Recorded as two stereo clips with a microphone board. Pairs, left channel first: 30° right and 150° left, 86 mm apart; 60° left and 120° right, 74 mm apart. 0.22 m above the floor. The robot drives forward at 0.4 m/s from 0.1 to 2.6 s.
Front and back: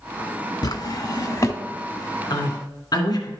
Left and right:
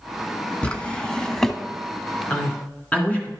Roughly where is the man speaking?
Ahead.